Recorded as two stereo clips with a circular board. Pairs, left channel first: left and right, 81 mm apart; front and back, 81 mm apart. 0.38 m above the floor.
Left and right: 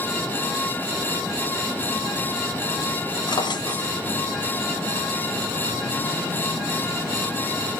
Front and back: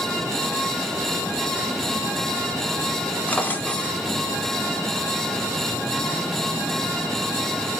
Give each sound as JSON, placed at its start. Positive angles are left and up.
{"t": 3.3, "sound": "a drawer", "azimuth_deg": 65, "distance_m": 0.9}